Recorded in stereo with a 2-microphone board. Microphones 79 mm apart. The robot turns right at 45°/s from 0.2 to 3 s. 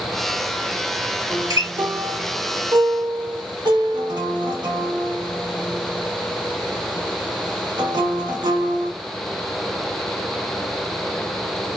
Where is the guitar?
40° right (ahead or behind), 0.9 m; by 8.9 s 65° right (ahead or behind), 0.9 m.